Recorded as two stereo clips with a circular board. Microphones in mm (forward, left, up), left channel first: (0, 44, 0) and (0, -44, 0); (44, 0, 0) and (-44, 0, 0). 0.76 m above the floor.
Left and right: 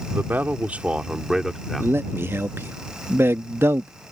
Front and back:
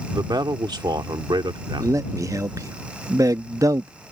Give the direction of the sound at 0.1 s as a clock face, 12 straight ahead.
5 o'clock.